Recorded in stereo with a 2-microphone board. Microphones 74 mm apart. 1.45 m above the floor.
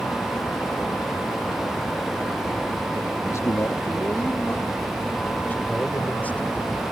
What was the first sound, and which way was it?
A man speaking, 45° left (ahead or behind).